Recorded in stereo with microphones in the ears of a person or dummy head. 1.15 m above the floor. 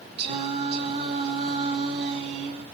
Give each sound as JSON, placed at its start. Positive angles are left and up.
{"t": 0.2, "sound": "singing", "side_deg": -40, "distance_m": 2.0}